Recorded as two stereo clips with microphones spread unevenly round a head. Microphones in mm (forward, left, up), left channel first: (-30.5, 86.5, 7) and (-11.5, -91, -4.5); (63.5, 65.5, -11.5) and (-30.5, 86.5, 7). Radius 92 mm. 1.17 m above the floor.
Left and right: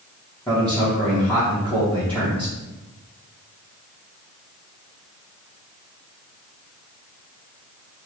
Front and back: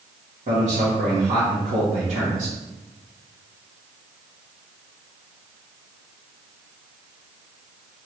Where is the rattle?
I don't hear a rattle.